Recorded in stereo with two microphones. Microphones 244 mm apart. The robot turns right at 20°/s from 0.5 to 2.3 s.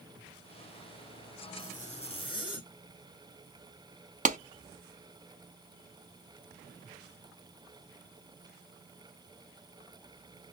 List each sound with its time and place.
1.6 s a zipper: 35° left (ahead or behind), 1.4 m; by 2.7 s 20° left (ahead or behind), 1.4 m
4.2 s a clap: 30° right (ahead or behind), 0.6 m